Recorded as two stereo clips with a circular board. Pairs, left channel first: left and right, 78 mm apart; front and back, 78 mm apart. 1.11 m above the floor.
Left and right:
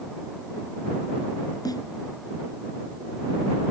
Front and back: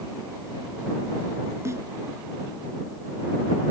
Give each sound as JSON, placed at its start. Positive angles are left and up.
{"t": 1.6, "sound": "a snare drum", "azimuth_deg": 125}